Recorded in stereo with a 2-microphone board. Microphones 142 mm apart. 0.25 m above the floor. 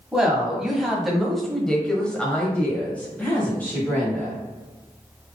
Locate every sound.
0.1 s a woman speaking: 5° right (ahead or behind), 1.5 m; by 4.4 s 15° left (ahead or behind), 1.6 m